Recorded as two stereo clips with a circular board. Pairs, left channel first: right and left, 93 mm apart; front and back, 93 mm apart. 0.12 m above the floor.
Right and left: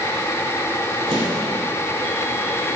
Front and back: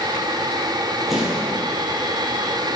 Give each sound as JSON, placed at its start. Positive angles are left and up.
{"t": 1.1, "sound": "an explosion", "azimuth_deg": 90, "distance_m": 4.0}